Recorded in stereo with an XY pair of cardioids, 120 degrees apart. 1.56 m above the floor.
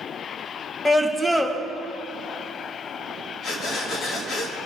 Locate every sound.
0.8 s a scream: 15° left, 2.5 m
3.4 s breathing: 65° left, 2.5 m